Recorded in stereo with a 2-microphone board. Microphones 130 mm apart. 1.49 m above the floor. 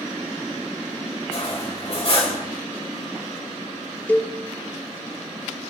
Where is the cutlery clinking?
45° left (ahead or behind), 4 m.